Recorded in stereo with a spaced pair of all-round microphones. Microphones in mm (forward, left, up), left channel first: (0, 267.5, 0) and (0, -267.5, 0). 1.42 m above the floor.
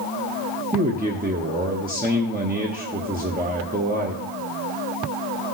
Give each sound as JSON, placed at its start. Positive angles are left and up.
{"t": 0.7, "sound": "a man speaking", "side_deg": -15, "distance_m": 0.8}